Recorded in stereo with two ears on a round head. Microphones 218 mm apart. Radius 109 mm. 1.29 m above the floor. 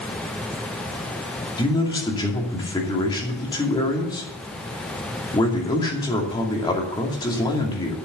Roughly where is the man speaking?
Centre.